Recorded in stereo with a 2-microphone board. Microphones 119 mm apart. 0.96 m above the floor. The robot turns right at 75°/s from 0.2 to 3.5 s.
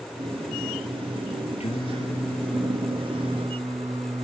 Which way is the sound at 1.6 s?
120° left.